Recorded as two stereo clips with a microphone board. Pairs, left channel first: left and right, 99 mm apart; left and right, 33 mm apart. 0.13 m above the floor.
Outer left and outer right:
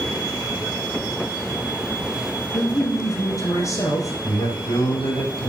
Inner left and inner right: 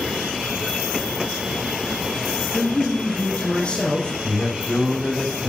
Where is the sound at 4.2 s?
70° left (ahead or behind), 5.5 m.